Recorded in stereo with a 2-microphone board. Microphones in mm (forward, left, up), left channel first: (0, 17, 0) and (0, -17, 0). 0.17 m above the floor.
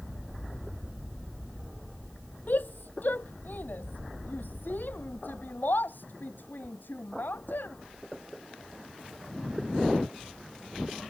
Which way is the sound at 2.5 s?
70° left (ahead or behind).